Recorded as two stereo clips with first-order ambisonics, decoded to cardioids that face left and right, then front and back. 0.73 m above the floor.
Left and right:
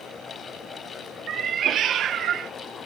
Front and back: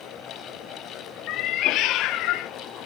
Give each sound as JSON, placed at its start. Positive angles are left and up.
{"t": 1.3, "sound": "a cat meowing", "azimuth_deg": -35, "distance_m": 0.5}